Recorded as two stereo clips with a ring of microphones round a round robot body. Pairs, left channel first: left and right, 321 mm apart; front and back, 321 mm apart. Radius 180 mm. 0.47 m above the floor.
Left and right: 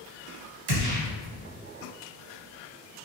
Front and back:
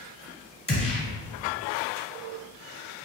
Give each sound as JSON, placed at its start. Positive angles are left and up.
{"t": 0.7, "sound": "a gunshot", "azimuth_deg": -75, "distance_m": 1.6}